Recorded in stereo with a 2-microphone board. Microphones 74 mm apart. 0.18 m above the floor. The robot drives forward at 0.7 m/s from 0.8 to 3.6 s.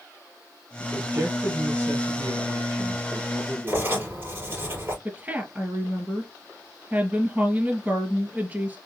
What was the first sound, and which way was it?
A man speaking, 50° right (ahead or behind).